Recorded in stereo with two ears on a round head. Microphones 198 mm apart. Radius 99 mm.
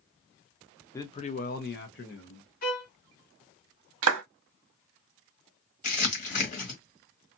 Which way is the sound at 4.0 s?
70° right (ahead or behind).